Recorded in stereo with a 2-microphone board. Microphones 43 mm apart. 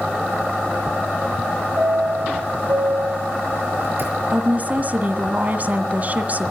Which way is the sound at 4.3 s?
35° right (ahead or behind).